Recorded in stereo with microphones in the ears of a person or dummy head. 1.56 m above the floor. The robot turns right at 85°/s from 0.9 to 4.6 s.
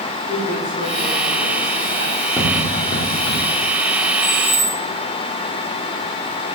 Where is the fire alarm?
I don't hear a fire alarm.